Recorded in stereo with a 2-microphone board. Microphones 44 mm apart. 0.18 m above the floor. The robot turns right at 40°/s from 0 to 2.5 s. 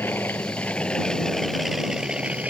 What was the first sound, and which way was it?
An aircraft, 55° left (ahead or behind).